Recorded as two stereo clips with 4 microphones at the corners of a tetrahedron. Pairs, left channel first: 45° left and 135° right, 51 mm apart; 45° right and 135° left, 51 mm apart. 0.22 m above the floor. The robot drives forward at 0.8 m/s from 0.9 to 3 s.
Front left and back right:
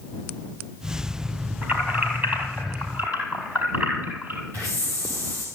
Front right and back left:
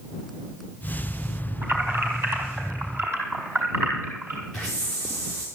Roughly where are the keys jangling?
Behind.